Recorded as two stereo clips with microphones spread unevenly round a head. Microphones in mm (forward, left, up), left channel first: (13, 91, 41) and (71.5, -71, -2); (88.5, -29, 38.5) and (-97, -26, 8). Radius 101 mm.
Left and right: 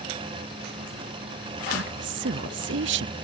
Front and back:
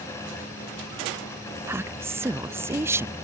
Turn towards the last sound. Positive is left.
turn(degrees=-100)